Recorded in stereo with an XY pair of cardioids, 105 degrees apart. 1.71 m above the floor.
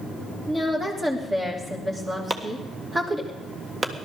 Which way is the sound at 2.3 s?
30° right.